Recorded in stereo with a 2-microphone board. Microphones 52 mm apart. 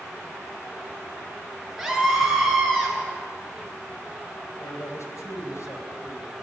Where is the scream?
Centre (ahead or behind), 8 m; by 3.0 s 10° left (ahead or behind), 7.5 m.